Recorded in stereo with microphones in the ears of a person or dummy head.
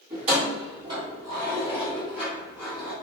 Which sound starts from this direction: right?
Keys jangling, at 0.1 s.